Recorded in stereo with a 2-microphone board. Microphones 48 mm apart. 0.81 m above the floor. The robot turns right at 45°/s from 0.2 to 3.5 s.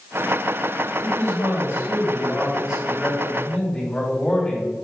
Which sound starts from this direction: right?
A man speaking, at 1.0 s.